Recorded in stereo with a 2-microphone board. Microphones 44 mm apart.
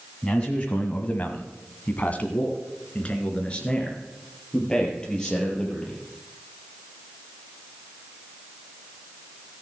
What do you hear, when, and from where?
0.2 s a man speaking: 25° left (ahead or behind), 1.6 m; by 6.0 s 15° left (ahead or behind), 6 m